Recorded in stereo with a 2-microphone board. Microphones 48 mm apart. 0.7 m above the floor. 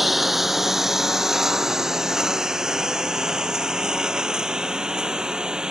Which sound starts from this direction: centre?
A lawn mower, at 0.0 s.